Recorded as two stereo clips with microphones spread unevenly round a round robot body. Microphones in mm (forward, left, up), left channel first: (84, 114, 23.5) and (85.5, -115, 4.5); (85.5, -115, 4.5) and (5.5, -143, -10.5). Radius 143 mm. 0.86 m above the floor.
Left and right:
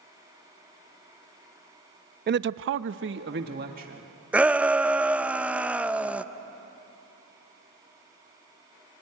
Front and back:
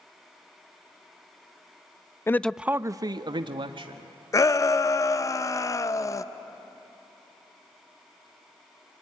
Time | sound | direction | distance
2.3 | a man speaking | 50° right | 0.6 m
4.3 | a shout | 20° right | 0.7 m